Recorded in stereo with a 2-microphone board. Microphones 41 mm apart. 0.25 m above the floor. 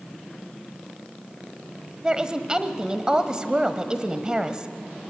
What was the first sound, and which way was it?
A woman speaking, 20° right (ahead or behind).